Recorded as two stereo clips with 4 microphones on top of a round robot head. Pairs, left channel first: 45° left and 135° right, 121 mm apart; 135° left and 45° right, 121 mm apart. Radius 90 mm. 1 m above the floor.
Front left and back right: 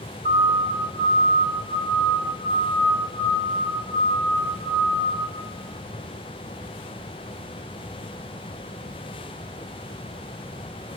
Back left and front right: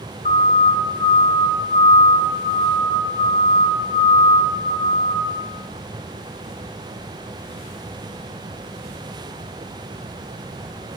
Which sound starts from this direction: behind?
A siren, at 0.2 s.